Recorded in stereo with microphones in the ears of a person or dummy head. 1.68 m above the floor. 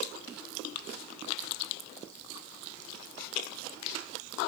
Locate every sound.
Only background noise.